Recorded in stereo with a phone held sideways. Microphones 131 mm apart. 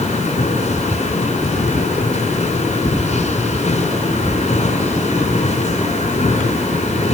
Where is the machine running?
60° left (ahead or behind), 5.5 m.